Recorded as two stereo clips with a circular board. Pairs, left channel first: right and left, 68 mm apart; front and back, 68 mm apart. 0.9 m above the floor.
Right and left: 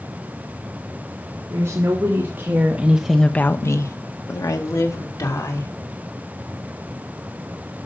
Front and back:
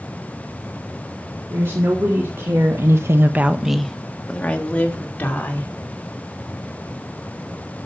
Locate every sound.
1.5 s a woman speaking: 135° left, 2.5 m; by 5.7 s 65° right, 3.5 m